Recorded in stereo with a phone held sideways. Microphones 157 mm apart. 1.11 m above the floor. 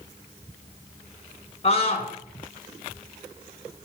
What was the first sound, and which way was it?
A scream, 40° left (ahead or behind).